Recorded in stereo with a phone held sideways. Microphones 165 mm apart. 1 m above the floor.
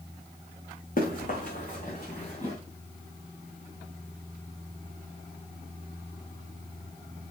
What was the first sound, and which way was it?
Running footsteps, 55° left (ahead or behind).